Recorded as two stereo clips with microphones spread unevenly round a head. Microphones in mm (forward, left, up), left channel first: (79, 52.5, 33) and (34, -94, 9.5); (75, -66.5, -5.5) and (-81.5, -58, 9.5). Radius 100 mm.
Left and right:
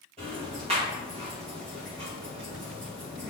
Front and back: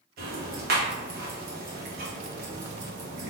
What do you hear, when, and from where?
0.2 s ticking: 175° right, 1.4 m